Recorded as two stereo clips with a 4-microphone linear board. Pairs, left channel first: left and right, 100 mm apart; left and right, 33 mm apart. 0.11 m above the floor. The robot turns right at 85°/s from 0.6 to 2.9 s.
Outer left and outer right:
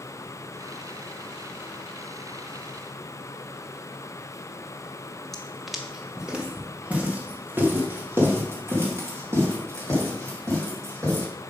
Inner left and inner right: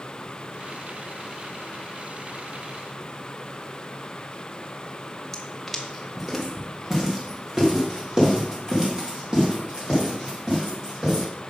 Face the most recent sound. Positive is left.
turn(degrees=-30)  # may be behind; listen again after turning